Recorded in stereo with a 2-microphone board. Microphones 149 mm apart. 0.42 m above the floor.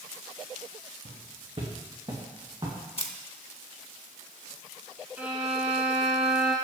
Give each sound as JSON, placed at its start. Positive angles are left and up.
{"t": 1.1, "sound": "footsteps", "side_deg": -60, "distance_m": 2.5}
{"t": 3.0, "sound": "a camera shutter", "side_deg": 45, "distance_m": 0.7}
{"t": 5.2, "sound": "a violin", "side_deg": -10, "distance_m": 2.0}